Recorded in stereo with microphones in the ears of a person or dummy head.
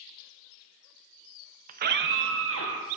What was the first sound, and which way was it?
A scream, 45° right (ahead or behind).